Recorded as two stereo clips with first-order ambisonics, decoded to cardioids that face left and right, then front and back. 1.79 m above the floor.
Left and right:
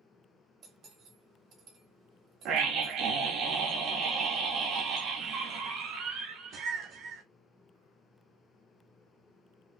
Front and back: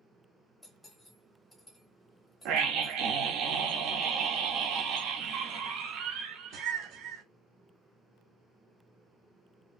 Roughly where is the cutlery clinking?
Right.